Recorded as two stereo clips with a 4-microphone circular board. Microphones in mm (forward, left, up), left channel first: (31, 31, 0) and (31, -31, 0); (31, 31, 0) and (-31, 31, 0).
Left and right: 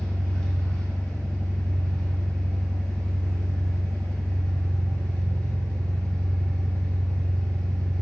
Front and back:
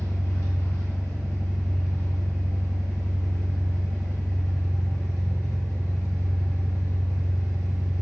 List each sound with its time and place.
0.0 s an engine running: 20° left, 1.6 m